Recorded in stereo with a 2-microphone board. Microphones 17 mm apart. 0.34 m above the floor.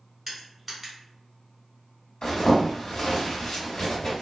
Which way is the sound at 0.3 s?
Centre (ahead or behind).